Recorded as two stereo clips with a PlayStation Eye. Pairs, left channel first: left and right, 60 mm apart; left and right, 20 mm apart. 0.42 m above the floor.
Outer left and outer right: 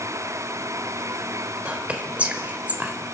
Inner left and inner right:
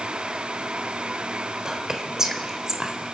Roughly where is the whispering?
Right.